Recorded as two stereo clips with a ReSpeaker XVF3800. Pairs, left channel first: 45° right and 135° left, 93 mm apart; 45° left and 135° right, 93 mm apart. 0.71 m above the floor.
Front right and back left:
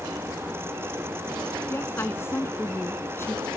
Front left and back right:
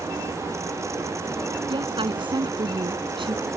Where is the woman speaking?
110° right.